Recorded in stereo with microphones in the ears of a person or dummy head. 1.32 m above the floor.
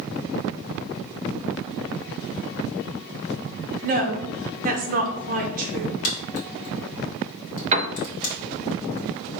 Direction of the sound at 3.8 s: 50° right (ahead or behind).